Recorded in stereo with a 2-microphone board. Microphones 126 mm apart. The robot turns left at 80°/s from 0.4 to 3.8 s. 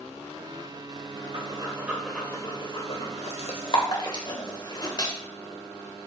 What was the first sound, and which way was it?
Breathing, 50° right (ahead or behind).